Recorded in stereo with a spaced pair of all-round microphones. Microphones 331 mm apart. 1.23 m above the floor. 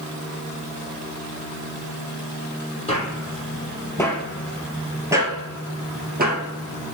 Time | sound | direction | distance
2.9 | footsteps | 20° left (ahead or behind) | 2.5 m